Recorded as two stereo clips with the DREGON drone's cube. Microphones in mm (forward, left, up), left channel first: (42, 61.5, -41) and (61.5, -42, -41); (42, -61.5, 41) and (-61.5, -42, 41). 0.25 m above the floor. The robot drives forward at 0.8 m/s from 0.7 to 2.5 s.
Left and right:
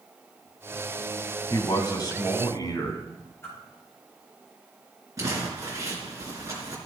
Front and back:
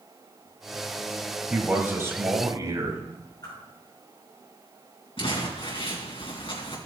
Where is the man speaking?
95° left, 1.6 m; by 3.0 s 135° left, 1.8 m.